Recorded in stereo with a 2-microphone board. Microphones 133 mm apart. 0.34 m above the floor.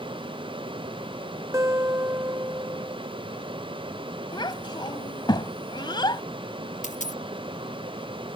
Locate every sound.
1.5 s a guitar: 20° right (ahead or behind)
4.3 s a child speaking: 35° left (ahead or behind)
6.8 s a dropped coin: 65° left (ahead or behind)